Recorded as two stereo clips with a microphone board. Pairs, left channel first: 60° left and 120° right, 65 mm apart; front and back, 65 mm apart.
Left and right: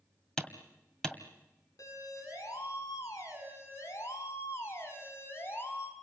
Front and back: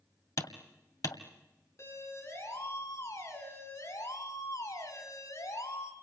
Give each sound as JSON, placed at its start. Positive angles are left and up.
{"t": 0.4, "sound": "hammering", "azimuth_deg": -15, "distance_m": 1.9}
{"t": 1.8, "sound": "a siren", "azimuth_deg": 40, "distance_m": 6.5}